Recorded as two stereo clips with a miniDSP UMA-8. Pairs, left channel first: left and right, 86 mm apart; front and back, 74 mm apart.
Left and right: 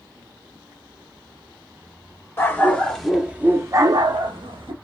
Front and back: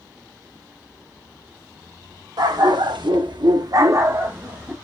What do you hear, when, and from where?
2.4 s a dog barking: 155° left, 0.9 m; by 4.7 s 105° right, 0.9 m